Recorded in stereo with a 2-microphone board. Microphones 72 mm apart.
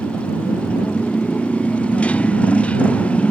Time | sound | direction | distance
0.0 | a motorcycle | 20° left (ahead or behind) | ?